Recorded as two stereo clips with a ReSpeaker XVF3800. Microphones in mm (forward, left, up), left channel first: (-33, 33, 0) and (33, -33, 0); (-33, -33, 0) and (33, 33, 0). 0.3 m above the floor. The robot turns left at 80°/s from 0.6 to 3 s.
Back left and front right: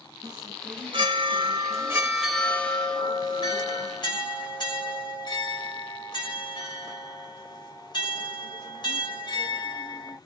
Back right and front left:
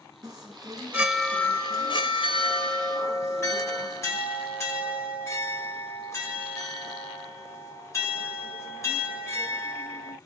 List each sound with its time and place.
0.2 s a chime: straight ahead, 1.2 m; by 10.2 s 165° left, 1.2 m